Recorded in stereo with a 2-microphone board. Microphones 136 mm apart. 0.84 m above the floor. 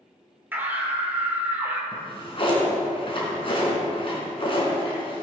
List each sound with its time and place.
0.5 s a scream: 15° right (ahead or behind), 2.5 m
1.9 s a drawer: 40° left (ahead or behind), 3.5 m